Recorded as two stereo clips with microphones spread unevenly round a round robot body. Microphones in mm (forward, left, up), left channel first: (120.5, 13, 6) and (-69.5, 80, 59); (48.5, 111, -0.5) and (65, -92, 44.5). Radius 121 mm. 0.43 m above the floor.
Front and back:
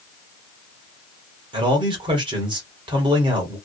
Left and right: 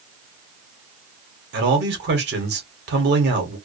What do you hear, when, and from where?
1.5 s a man speaking: 125° right, 1.1 m